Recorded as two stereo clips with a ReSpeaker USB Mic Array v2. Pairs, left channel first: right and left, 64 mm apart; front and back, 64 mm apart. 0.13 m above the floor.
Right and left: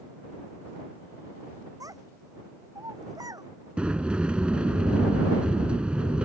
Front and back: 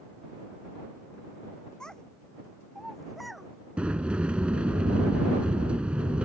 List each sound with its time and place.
1.8 s a child speaking: 75° left; by 3.5 s 90° left
3.8 s a sliding door: 135° left